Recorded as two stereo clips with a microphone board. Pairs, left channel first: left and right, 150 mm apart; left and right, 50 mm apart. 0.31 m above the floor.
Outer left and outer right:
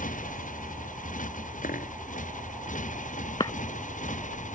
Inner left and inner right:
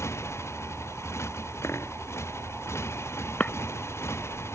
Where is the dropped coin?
65° left (ahead or behind).